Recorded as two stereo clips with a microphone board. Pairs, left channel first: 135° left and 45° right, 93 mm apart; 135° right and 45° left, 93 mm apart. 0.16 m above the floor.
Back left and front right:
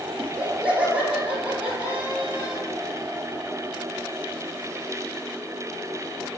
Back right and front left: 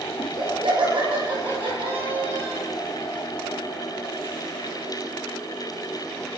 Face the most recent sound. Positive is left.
turn(degrees=25)